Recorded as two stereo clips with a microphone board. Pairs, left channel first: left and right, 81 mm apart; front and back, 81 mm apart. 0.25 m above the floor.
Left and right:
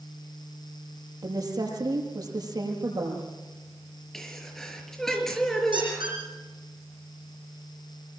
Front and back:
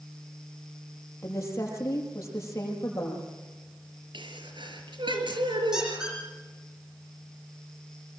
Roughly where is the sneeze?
Behind.